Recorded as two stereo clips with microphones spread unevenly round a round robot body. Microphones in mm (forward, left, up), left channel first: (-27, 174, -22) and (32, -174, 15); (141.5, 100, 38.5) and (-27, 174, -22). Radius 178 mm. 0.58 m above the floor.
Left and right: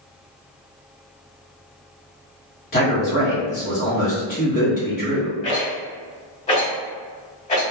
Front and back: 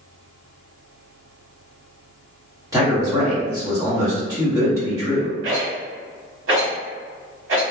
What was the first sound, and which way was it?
A man speaking, 135° left.